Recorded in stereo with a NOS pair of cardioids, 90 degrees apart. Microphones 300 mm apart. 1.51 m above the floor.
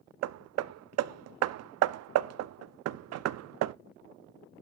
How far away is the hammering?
About 0.5 m.